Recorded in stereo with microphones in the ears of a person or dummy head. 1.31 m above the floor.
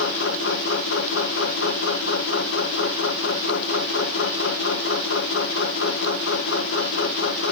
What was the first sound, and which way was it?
A machine running, 75° left (ahead or behind).